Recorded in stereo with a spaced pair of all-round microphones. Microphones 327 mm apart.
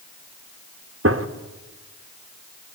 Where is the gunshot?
40° right (ahead or behind), 1.3 m.